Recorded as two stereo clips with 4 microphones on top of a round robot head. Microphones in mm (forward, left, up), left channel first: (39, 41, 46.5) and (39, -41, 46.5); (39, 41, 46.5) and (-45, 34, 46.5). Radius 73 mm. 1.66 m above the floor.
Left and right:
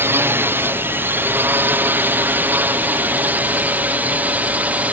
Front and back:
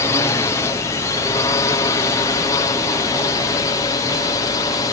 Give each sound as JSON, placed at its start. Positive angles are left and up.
{"t": 0.0, "sound": "a drone", "azimuth_deg": -40}